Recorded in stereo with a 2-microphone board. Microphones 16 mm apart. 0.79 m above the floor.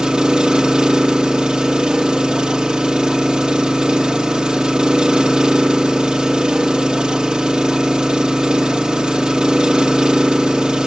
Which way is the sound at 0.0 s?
55° right (ahead or behind).